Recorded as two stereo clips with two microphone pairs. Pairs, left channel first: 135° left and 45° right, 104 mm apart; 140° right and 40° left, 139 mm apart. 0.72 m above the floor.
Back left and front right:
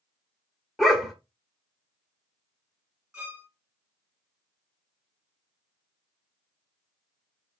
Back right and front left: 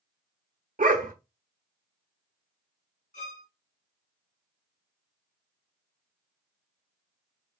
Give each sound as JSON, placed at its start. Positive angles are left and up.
{"t": 0.8, "sound": "a dog barking", "azimuth_deg": 50, "distance_m": 0.9}
{"t": 3.1, "sound": "a violin", "azimuth_deg": -125, "distance_m": 1.9}